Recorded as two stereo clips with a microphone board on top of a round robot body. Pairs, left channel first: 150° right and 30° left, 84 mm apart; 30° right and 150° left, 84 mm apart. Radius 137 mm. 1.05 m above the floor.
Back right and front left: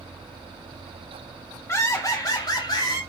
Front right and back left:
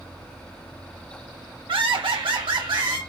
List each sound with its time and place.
1.7 s laughter: 150° left, 2 m; by 3.0 s 175° left, 3.5 m